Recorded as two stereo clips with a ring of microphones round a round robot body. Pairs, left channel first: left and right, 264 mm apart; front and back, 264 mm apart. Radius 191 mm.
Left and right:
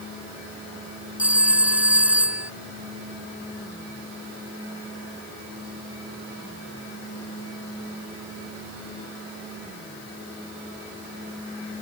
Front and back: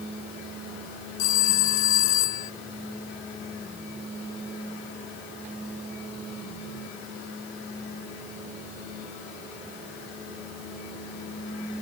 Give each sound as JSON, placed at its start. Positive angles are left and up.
{"t": 1.2, "sound": "a phone ringing", "azimuth_deg": -5}